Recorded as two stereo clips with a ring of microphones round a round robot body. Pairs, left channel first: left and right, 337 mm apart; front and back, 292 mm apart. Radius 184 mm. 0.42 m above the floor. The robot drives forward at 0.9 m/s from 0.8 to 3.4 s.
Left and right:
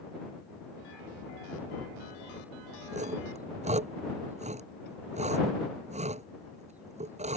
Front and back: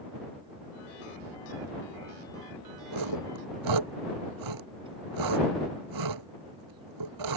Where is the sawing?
160° right.